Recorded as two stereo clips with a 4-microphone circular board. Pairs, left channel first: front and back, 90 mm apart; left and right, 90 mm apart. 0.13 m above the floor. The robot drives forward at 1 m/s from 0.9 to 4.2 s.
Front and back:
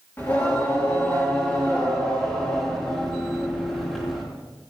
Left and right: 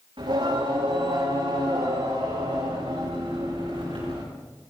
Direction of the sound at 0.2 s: 65° right.